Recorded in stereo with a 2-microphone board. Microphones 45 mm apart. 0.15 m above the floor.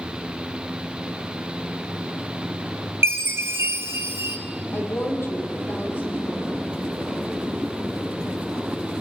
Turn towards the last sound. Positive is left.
turn(degrees=60)  # may be behind; listen again after turning